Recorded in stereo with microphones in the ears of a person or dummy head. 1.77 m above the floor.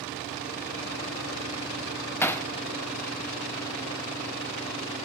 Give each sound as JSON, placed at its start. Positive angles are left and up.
{"t": 2.2, "sound": "hammering", "side_deg": 10, "distance_m": 0.6}